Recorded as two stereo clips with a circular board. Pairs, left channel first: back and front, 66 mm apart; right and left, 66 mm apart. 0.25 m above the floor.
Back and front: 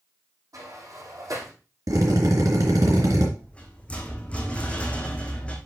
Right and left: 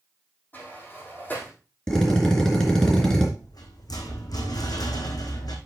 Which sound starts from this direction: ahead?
A drill, at 1.9 s.